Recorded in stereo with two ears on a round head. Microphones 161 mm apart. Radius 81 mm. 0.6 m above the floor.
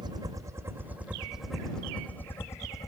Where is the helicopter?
25° right (ahead or behind); by 2.9 s 20° left (ahead or behind).